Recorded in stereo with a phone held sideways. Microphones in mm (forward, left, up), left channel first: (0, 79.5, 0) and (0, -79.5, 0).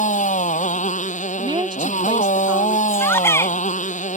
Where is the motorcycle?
50° left (ahead or behind).